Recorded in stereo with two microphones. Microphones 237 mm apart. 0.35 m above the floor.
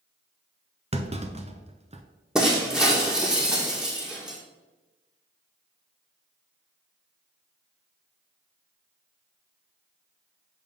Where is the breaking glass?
5° right (ahead or behind), 1.4 m.